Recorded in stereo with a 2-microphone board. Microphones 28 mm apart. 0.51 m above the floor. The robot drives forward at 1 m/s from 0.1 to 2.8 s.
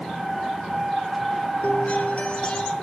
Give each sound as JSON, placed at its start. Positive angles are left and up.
{"t": 1.6, "sound": "a guitar", "side_deg": 70, "distance_m": 0.8}